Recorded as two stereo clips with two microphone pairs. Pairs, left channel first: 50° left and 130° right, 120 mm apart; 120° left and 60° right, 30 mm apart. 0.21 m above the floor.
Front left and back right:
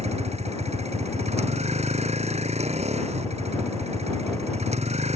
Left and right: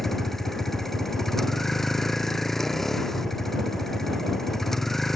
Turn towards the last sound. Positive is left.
turn(degrees=-160)